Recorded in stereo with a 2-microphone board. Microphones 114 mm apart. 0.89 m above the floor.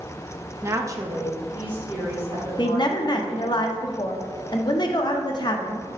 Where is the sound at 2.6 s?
40° left (ahead or behind), 0.6 m.